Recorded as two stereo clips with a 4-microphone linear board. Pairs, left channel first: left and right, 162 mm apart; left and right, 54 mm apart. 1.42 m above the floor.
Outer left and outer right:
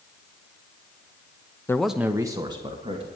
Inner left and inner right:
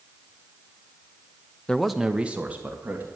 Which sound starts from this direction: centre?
A man speaking, at 1.7 s.